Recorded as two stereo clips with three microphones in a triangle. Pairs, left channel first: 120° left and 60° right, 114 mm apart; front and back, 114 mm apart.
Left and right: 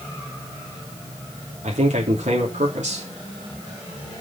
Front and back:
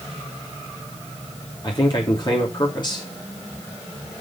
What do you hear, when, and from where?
1.6 s a man speaking: 50° right, 3 m